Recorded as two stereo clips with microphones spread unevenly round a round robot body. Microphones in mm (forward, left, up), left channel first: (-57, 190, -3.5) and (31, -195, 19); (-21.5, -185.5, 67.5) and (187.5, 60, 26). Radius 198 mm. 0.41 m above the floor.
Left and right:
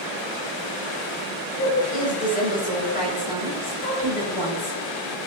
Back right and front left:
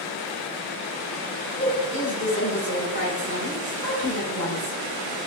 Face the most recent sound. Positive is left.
turn(degrees=170)